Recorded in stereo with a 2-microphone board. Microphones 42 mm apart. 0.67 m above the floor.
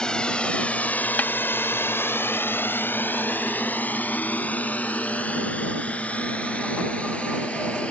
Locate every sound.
0.0 s a drone: 20° left (ahead or behind); by 7.9 s 30° left (ahead or behind)
1.2 s a snare drum: 45° left (ahead or behind)